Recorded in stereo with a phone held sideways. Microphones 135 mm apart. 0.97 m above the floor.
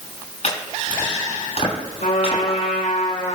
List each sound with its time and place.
0.4 s chopping: 55° left (ahead or behind), 7.5 m
2.0 s a trumpet: 75° left (ahead or behind), 5.5 m